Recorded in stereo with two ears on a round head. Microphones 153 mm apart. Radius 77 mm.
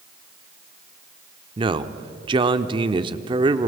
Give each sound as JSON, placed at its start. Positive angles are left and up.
{"t": 1.6, "sound": "a man speaking", "side_deg": -30, "distance_m": 0.8}